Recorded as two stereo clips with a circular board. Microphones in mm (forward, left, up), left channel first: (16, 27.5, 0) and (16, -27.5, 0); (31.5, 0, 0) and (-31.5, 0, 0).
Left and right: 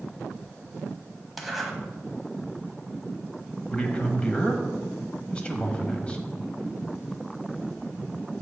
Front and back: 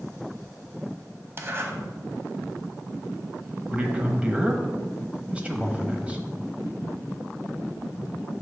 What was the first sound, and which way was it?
A zipper, straight behind.